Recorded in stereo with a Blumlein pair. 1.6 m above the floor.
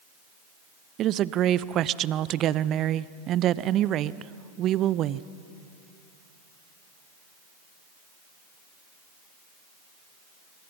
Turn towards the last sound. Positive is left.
turn(degrees=-30)